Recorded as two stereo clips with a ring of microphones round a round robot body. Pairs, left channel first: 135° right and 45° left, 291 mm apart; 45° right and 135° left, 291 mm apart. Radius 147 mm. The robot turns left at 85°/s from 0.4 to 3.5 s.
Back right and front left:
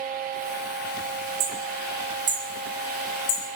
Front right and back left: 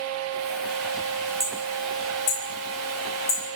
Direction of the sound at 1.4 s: 55° left.